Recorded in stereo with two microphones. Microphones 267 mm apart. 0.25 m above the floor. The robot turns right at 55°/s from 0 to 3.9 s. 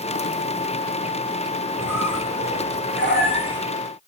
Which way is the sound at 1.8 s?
65° left.